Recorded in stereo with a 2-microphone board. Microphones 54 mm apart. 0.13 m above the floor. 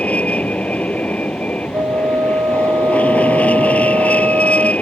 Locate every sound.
0.0 s an aircraft: 25° left (ahead or behind)
1.7 s a flute: 75° right (ahead or behind)